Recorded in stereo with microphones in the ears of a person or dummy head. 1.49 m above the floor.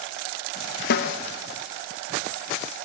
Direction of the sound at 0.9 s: 60° left (ahead or behind).